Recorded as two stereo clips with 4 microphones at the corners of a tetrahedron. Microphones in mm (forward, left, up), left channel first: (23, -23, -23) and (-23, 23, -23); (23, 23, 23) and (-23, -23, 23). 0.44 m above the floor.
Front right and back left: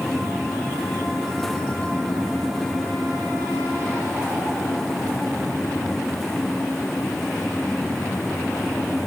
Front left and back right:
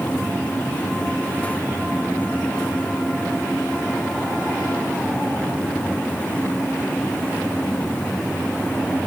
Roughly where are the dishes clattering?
I don't hear dishes clattering.